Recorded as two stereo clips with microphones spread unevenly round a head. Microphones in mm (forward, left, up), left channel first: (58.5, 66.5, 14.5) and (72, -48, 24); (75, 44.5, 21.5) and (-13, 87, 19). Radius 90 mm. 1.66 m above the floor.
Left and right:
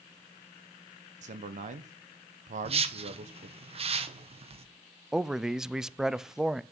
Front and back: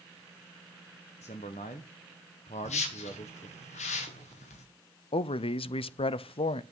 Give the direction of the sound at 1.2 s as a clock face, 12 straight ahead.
2 o'clock.